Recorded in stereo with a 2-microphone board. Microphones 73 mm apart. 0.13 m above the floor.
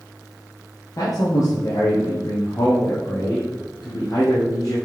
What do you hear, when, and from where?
1.0 s a man speaking: 50° left (ahead or behind), 3.5 m